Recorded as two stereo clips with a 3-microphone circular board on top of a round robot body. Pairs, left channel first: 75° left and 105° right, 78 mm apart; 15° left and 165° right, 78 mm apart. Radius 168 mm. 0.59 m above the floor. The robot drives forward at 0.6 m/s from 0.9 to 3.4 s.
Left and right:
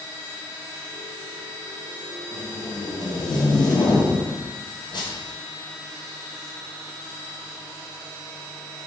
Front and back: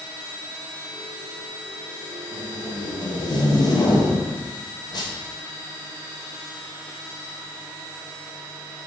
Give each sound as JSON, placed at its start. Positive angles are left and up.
{"t": 2.3, "sound": "tape being pulled", "azimuth_deg": 30, "distance_m": 2.0}